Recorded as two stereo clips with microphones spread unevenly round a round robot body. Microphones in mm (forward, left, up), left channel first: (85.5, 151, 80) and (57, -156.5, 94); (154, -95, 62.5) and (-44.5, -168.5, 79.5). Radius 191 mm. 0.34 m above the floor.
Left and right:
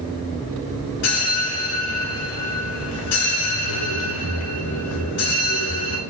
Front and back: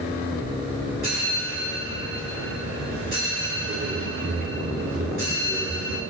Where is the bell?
135° left, 0.7 m.